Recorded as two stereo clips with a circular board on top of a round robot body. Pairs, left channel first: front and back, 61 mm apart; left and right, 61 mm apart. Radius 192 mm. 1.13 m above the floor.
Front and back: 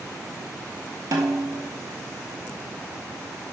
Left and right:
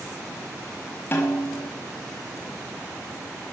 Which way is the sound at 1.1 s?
150° left.